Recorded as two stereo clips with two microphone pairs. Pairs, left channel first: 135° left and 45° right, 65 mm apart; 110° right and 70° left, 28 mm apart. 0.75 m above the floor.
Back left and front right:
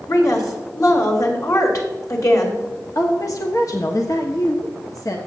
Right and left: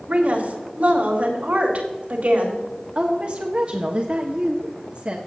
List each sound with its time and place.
0.1 s a woman speaking: 105° left, 3 m
3.0 s a woman speaking: 115° left, 1.1 m